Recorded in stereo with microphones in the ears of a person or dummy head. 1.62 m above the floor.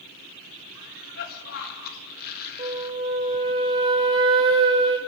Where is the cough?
45° left (ahead or behind), 1.1 m.